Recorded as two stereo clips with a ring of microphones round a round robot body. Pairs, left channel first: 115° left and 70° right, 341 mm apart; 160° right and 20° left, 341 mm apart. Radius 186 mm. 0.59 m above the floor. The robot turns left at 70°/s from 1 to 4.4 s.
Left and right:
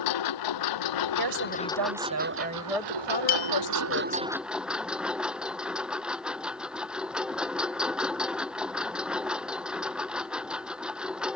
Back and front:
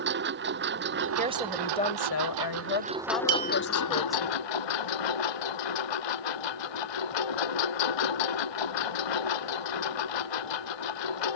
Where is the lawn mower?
85° left; by 11.4 s 155° right.